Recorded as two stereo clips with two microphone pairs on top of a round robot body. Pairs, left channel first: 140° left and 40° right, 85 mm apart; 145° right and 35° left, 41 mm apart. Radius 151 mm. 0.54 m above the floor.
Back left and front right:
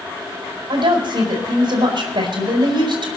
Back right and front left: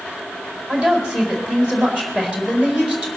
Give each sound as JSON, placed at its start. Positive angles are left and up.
{"t": 0.7, "sound": "a woman speaking", "azimuth_deg": -25, "distance_m": 4.5}